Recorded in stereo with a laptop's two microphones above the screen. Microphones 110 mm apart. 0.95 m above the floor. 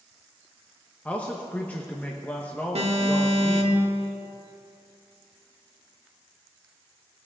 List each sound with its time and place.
1.1 s a man speaking: 15° left (ahead or behind), 0.9 m
2.8 s an alarm: 80° right, 1.8 m